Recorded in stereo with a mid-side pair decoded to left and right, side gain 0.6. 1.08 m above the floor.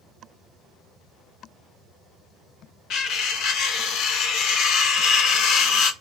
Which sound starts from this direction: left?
Cutlery clinking, at 2.9 s.